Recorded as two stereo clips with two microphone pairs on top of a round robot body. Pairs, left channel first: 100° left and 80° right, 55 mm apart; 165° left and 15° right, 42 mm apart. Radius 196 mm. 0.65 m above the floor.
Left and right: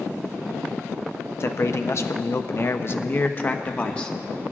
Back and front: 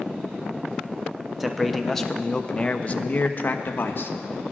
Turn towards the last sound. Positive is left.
turn(degrees=165)